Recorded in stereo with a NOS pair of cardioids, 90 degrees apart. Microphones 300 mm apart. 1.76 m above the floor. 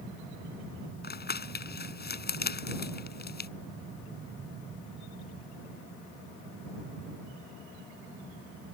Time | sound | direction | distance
1.0 | crumpling | 35° left | ?